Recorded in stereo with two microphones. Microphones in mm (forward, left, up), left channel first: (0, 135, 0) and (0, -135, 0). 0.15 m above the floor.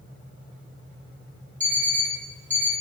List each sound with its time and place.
1.6 s an alarm clock: 25° right (ahead or behind), 1.9 m